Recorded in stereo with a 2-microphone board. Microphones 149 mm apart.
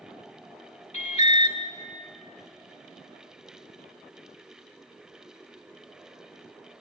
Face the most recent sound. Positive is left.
turn(degrees=50)  # may be behind; listen again after turning